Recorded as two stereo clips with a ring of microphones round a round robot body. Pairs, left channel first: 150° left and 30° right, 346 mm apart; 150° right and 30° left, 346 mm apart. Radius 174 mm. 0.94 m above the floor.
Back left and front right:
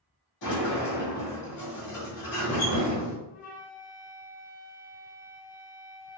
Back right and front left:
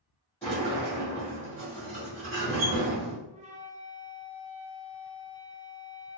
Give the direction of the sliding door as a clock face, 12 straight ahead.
8 o'clock.